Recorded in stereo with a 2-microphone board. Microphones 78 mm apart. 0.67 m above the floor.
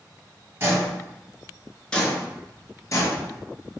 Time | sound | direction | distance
0.6 | footsteps | 35° right (ahead or behind) | 0.9 m